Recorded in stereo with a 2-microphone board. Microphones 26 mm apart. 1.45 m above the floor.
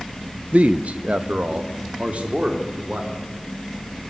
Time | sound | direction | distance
0.5 | a man speaking | 70° right (ahead or behind) | 0.7 m